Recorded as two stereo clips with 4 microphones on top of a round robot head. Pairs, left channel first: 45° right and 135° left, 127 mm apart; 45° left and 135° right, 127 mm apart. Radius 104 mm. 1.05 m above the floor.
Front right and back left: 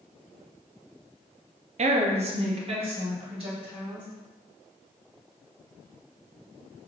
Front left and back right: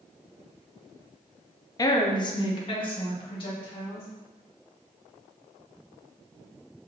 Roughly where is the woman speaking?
Left.